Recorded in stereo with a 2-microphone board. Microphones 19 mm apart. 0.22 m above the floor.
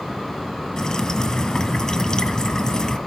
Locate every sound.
0.8 s dripping: 35° left (ahead or behind), 2.5 m